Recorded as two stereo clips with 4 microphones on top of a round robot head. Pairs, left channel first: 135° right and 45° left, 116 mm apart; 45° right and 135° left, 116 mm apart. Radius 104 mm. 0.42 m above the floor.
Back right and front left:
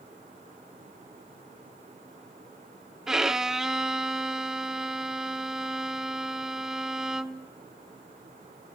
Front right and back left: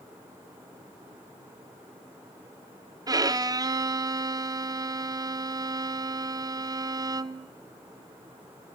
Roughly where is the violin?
Behind left.